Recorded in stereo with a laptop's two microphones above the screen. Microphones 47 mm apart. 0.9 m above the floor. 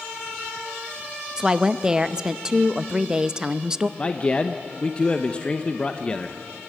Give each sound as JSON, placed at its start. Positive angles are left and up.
{"t": 1.4, "sound": "a woman speaking", "side_deg": -15, "distance_m": 0.6}
{"t": 4.0, "sound": "a man speaking", "side_deg": 25, "distance_m": 0.7}